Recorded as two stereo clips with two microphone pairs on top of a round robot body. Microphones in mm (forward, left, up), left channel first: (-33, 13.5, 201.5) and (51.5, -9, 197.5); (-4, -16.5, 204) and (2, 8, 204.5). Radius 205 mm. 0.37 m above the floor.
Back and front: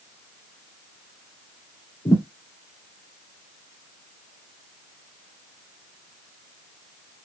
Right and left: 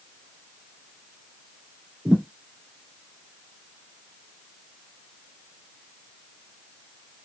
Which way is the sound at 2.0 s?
105° left.